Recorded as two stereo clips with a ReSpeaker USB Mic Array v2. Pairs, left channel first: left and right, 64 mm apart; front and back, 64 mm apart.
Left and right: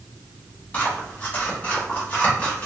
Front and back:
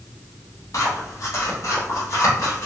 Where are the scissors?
25° left, 1.2 m.